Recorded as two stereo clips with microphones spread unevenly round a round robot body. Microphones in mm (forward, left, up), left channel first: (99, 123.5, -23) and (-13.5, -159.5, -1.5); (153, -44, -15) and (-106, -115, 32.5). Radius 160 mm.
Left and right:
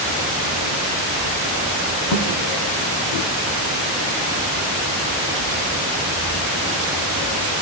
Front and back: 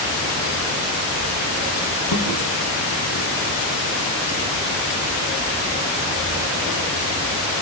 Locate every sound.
2.1 s a thud: 55° left, 5 m